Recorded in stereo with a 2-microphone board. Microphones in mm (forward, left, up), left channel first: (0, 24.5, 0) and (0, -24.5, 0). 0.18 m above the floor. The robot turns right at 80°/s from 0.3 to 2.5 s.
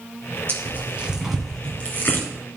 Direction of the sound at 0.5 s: 55° right (ahead or behind).